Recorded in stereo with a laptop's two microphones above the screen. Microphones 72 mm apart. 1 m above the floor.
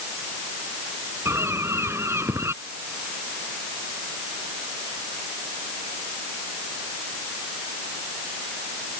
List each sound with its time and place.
1.2 s a bird: 40° right (ahead or behind)